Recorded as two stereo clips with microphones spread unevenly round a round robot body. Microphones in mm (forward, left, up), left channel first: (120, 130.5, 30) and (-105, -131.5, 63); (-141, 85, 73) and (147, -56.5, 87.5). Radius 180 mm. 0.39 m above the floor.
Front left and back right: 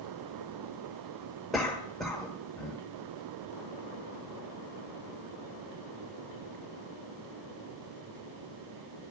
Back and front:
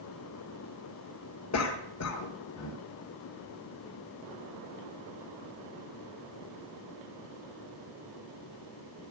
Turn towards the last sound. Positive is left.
turn(degrees=135)